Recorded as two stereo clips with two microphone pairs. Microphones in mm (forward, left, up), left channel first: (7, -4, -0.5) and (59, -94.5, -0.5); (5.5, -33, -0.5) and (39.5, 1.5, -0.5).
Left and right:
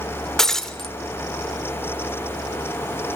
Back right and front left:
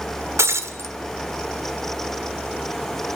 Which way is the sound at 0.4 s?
30° left.